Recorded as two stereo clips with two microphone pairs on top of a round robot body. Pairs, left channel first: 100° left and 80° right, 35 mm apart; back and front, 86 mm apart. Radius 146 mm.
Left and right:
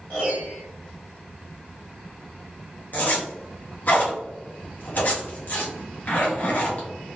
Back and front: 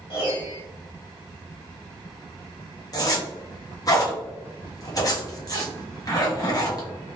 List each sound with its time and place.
0.1 s a piano: 140° left, 0.8 m
2.9 s a zipper: 140° left, 1.4 m